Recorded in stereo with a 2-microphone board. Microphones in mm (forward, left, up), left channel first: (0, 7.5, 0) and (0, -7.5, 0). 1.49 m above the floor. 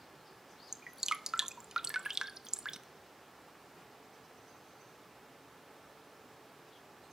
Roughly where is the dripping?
Right.